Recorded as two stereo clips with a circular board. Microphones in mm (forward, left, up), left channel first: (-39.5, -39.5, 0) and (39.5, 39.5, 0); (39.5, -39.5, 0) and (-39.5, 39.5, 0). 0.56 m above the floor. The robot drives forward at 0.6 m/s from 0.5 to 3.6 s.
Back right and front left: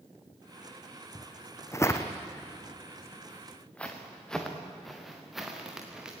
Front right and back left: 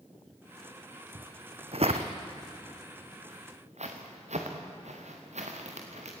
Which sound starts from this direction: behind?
Footsteps, at 1.1 s.